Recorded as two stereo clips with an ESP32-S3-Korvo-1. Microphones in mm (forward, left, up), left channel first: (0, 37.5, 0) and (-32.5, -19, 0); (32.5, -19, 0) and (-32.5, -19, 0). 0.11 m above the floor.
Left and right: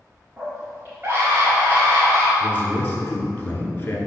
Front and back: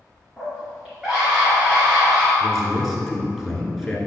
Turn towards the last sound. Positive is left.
turn(degrees=90)